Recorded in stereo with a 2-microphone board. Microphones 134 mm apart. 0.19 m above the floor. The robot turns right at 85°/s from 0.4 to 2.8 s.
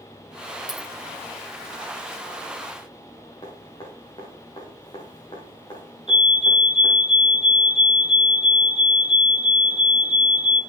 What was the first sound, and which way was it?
A dropped coin, 30° right (ahead or behind).